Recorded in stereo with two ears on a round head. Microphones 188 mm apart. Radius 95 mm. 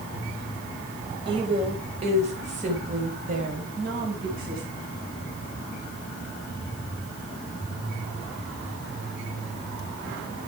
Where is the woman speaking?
25° right (ahead or behind), 4 m; by 4.6 s 45° right (ahead or behind), 5.5 m.